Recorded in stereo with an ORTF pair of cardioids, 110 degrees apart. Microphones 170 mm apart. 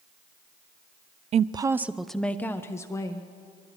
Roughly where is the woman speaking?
Ahead right.